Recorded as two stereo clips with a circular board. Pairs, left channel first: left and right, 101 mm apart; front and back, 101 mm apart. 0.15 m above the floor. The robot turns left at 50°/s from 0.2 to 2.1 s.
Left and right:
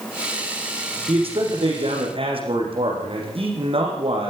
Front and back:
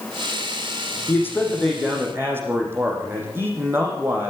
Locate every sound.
1.1 s a man speaking: 60° right, 6.5 m; by 4.3 s 115° right, 6.5 m